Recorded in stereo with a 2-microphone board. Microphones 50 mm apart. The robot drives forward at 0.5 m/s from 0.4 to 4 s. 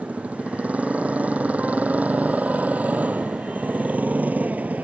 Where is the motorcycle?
30° right (ahead or behind).